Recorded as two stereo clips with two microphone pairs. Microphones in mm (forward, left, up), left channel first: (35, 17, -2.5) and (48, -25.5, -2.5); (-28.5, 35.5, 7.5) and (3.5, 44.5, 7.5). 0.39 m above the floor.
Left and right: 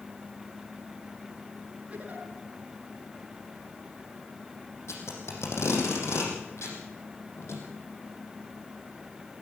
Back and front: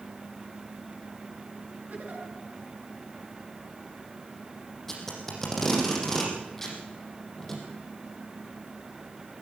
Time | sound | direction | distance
1.9 | a giggle | 10° right | 6.5 m
4.9 | tape being pulled | 115° left | 6 m